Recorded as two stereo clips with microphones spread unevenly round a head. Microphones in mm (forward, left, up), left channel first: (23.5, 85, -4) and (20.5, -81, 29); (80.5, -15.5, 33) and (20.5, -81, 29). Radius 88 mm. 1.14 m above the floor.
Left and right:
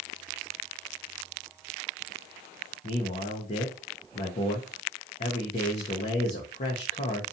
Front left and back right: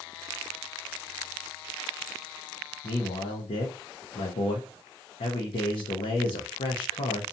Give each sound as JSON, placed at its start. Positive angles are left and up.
{"t": 2.8, "sound": "a man speaking", "azimuth_deg": 40, "distance_m": 0.6}